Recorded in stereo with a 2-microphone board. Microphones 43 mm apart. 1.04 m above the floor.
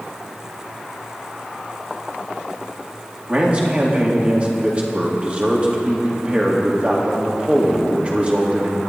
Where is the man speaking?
30° right (ahead or behind), 2.5 m.